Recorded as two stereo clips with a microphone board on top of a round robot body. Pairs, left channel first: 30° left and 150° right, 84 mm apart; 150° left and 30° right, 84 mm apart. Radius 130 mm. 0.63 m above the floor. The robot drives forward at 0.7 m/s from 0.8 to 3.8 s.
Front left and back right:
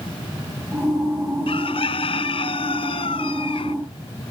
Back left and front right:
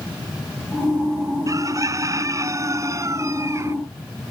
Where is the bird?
25° left.